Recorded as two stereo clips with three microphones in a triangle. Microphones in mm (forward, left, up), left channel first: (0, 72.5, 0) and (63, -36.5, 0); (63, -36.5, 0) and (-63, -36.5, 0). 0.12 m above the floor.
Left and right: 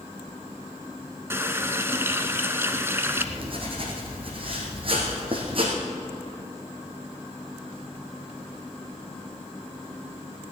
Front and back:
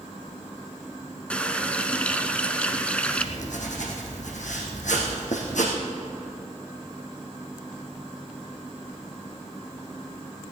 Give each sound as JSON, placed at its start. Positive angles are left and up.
{"t": 1.3, "sound": "a running tap", "azimuth_deg": -60, "distance_m": 0.9}
{"t": 3.1, "sound": "writing", "azimuth_deg": -15, "distance_m": 3.0}